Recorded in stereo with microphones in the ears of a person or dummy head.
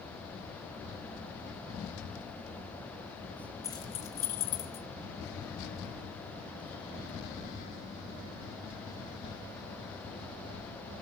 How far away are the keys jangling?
About 0.9 m.